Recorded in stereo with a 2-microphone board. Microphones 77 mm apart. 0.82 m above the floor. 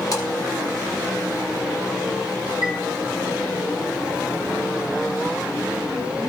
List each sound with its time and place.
0.1 s a splash: 50° left (ahead or behind), 3.5 m
2.6 s a chime: 50° left (ahead or behind), 3 m